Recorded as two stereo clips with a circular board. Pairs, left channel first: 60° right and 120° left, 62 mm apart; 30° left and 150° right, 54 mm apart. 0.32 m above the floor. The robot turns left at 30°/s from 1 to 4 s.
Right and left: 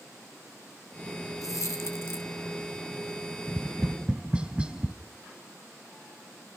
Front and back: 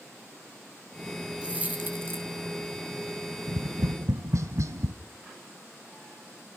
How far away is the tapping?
About 0.7 m.